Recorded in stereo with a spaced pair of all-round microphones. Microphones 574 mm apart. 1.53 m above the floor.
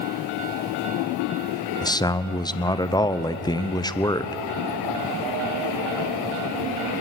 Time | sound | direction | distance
1.8 | a man speaking | 5° left (ahead or behind) | 0.7 m